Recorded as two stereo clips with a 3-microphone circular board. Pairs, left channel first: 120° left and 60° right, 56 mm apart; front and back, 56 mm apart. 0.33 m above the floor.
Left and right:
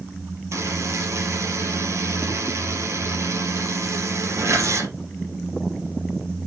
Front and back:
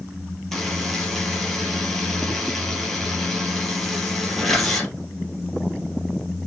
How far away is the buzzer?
About 3.5 m.